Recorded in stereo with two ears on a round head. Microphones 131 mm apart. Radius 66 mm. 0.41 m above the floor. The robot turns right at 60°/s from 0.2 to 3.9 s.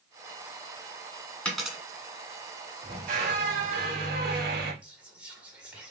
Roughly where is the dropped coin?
Centre.